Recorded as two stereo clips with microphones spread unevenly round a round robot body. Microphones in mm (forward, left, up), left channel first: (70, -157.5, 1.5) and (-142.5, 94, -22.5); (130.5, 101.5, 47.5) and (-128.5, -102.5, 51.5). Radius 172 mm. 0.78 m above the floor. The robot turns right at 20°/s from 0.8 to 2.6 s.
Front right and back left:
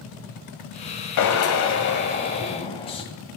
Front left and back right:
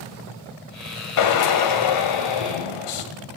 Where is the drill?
5° right, 1.9 m; by 3.0 s 25° left, 1.9 m.